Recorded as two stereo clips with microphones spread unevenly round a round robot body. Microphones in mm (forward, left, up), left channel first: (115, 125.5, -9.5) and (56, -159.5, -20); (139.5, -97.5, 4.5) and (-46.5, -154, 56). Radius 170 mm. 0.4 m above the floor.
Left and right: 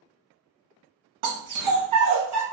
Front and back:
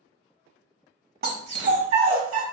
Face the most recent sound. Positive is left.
turn(degrees=-170)